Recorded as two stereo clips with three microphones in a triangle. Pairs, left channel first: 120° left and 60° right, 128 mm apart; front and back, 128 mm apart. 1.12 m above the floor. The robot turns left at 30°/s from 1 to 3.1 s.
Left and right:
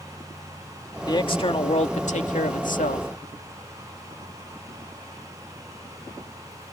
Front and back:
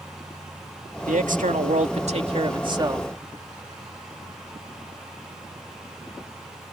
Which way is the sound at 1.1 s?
175° left.